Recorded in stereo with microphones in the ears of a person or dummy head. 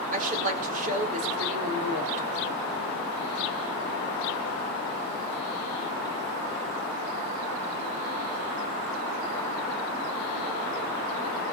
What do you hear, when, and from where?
0.1 s a woman speaking: 40° right (ahead or behind), 4 m